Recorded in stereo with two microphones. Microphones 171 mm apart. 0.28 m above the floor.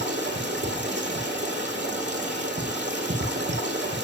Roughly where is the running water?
Right.